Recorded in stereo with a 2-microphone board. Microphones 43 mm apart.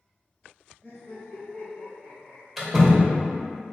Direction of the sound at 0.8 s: 30° left (ahead or behind).